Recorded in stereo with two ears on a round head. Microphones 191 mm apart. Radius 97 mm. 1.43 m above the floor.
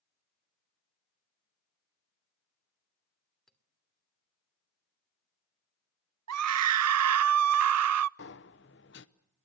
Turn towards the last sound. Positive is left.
turn(degrees=55)  # may be behind; listen again after turning